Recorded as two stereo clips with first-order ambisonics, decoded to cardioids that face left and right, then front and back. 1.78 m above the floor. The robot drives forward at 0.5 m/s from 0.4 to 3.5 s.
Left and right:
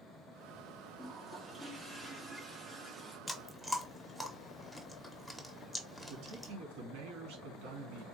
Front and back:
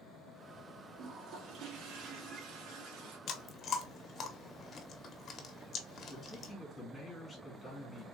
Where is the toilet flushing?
155° right, 0.9 m; by 3.2 s 170° right, 1.8 m.